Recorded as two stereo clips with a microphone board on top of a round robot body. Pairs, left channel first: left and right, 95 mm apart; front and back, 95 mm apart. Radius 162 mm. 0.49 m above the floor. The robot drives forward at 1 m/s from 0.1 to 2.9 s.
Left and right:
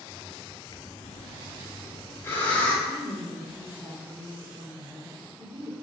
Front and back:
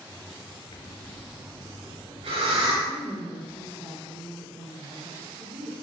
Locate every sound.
0.7 s breathing: 40° left, 0.7 m; by 2.8 s 165° left, 1.6 m
2.9 s a woman speaking: 140° right, 2 m; by 5.7 s 145° right, 2 m